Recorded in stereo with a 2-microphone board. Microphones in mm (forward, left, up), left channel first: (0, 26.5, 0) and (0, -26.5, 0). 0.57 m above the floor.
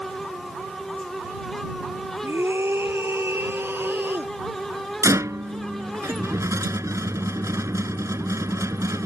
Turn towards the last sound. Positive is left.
turn(degrees=-75)  # may be behind; listen again after turning